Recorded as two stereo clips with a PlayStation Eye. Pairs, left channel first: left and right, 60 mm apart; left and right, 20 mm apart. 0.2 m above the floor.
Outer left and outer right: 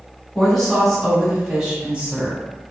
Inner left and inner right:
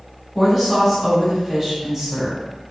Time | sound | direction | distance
0.3 | a woman speaking | 5° left (ahead or behind) | 1.4 m